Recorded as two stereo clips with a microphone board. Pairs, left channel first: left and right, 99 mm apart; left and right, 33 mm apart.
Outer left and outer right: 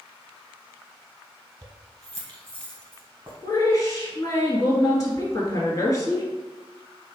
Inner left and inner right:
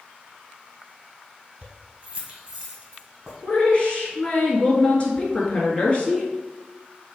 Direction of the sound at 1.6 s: 30° right (ahead or behind).